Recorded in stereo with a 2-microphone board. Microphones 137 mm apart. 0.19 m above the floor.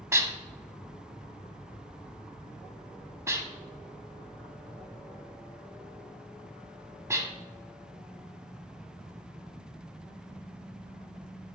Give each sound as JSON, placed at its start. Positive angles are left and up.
{"t": 0.1, "sound": "dishes clattering", "side_deg": -20, "distance_m": 0.8}